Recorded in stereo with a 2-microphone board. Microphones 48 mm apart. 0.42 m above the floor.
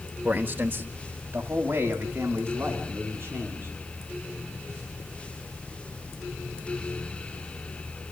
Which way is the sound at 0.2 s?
35° right (ahead or behind).